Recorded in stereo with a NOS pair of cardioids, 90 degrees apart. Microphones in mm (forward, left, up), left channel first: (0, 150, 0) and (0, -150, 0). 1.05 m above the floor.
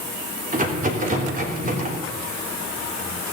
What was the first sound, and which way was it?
A rattle, 30° right.